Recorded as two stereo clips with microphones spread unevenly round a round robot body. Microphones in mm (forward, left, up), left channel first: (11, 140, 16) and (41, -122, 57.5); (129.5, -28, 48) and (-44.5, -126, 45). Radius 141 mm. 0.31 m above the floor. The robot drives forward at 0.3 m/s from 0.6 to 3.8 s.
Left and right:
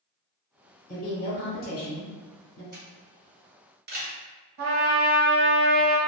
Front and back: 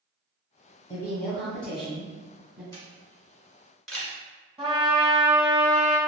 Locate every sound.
0.9 s a woman speaking: 100° left, 1.2 m; by 2.6 s 130° left, 1.4 m
2.7 s a camera shutter: 40° right, 1.5 m; by 4.2 s 60° right, 1.4 m
4.6 s a trumpet: 85° right, 1.1 m